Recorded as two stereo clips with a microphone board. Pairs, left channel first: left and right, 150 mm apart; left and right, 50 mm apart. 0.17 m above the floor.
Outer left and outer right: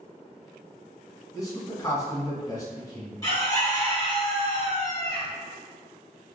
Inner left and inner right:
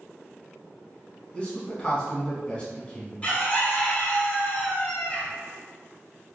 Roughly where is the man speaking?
Left.